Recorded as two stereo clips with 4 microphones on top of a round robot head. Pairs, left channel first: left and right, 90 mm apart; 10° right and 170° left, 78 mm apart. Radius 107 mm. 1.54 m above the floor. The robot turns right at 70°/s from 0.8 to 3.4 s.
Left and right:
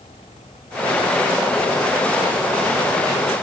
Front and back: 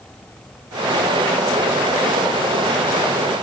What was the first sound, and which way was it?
Only background noise.